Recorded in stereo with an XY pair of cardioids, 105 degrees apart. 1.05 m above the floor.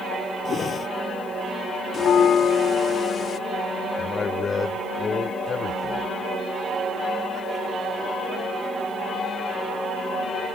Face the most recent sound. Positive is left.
turn(degrees=40)